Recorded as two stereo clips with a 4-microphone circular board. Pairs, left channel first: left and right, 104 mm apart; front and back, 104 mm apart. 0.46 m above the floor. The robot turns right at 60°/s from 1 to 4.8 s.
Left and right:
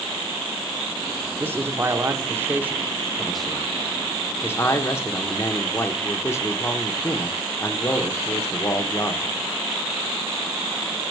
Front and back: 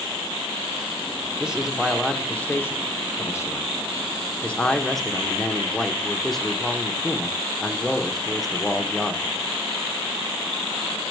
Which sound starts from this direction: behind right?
A man speaking, at 1.4 s.